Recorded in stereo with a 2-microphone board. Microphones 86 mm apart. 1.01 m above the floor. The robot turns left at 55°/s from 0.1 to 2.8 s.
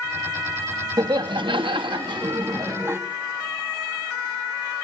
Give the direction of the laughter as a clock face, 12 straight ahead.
2 o'clock.